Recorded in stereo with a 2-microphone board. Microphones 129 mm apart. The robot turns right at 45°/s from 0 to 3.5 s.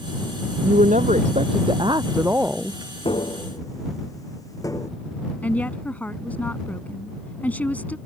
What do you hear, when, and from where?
0.6 s a woman speaking: 95° right; by 2.8 s 5° left
3.0 s tapping: 45° left (ahead or behind); by 4.9 s 25° left (ahead or behind)
5.4 s a woman speaking: 15° left (ahead or behind)